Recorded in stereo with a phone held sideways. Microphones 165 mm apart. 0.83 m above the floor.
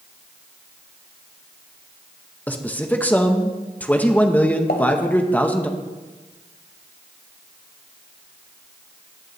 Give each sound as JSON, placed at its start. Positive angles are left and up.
{"t": 2.5, "sound": "a man speaking", "side_deg": 10, "distance_m": 0.9}
{"t": 4.7, "sound": "a pop", "side_deg": 75, "distance_m": 1.8}